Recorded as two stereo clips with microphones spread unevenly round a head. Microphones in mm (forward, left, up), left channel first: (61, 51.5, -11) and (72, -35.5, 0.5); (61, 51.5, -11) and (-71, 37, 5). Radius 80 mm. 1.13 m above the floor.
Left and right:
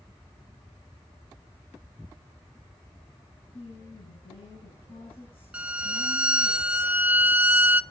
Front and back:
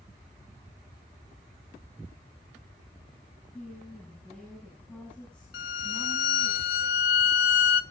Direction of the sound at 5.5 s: 10° right.